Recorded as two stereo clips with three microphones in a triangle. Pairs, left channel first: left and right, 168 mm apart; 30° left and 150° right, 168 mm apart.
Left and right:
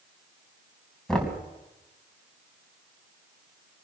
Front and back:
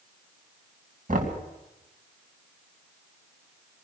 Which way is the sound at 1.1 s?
175° left.